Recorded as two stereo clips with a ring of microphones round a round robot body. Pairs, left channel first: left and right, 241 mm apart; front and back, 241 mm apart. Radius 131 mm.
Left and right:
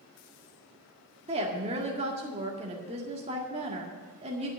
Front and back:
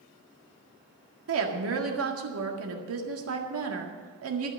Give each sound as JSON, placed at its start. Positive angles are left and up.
{"t": 1.3, "sound": "a woman speaking", "azimuth_deg": -155, "distance_m": 1.8}